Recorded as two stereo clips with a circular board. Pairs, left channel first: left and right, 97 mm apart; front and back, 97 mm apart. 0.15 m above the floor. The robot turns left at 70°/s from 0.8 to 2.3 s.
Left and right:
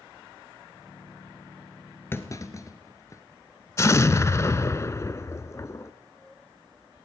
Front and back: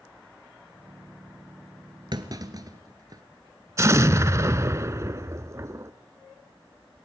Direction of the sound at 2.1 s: 155° left.